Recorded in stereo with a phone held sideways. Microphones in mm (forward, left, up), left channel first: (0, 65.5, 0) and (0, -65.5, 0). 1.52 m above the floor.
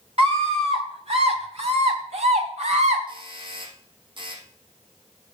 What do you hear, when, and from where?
0.2 s a scream: 55° right (ahead or behind), 2.5 m; by 3.0 s 65° right (ahead or behind), 4.5 m
3.1 s a doorbell: 40° right (ahead or behind), 4 m